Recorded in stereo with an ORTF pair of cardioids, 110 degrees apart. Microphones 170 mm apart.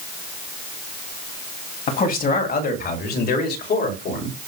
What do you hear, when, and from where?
1.9 s a man speaking: 55° left, 3 m; by 4.3 s 75° left, 5 m